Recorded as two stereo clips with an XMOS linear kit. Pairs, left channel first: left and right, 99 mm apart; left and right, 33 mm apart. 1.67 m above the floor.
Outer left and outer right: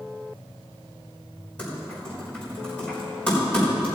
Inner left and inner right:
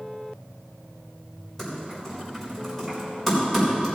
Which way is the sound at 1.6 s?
15° left (ahead or behind).